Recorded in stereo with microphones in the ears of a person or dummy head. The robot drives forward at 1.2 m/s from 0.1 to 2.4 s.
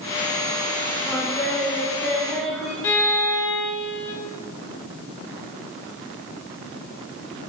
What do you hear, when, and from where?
1.1 s singing: 10° left (ahead or behind), 1.0 m; by 2.7 s 5° left (ahead or behind), 2 m
2.8 s a violin: 15° left (ahead or behind), 1.2 m